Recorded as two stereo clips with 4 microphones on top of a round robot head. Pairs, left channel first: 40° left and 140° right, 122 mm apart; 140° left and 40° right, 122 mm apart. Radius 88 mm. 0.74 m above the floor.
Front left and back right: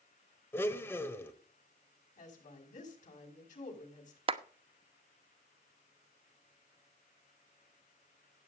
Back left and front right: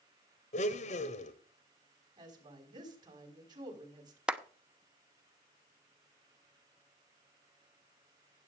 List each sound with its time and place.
0.5 s a blender: 110° left, 1.3 m
2.2 s a woman speaking: 20° left, 5.5 m
4.3 s a clap: 120° right, 1.1 m